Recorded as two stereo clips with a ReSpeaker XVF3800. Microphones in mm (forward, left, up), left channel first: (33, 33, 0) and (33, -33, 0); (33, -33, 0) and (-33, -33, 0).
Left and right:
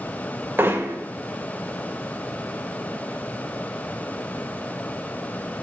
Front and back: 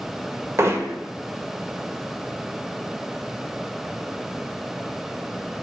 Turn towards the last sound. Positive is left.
turn(degrees=-140)